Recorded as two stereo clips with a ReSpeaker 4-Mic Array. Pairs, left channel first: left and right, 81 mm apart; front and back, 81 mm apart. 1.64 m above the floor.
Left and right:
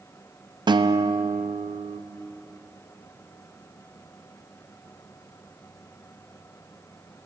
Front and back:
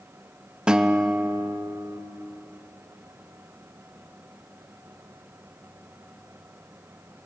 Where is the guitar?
100° right, 0.6 m.